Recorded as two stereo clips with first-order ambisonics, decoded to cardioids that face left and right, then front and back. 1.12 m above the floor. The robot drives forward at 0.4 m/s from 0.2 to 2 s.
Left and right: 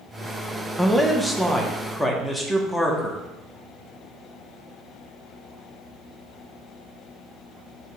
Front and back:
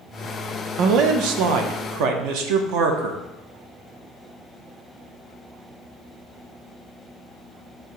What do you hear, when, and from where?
0.8 s a man speaking: 175° right, 0.6 m; by 3.2 s straight behind, 1.0 m